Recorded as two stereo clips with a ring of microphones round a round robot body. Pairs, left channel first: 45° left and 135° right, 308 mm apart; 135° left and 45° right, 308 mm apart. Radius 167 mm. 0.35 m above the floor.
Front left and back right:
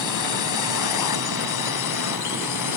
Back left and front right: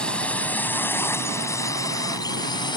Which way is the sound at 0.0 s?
50° left.